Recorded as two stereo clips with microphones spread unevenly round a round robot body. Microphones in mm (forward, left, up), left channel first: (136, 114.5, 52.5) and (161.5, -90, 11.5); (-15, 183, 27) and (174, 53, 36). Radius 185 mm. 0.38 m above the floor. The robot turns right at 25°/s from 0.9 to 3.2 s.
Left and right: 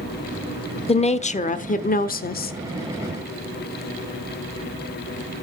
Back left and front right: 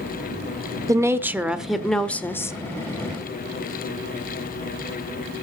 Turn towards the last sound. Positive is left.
turn(degrees=95)